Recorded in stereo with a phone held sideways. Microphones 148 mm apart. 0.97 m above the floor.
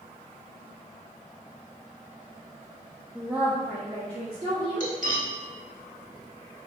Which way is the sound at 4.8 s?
65° right (ahead or behind).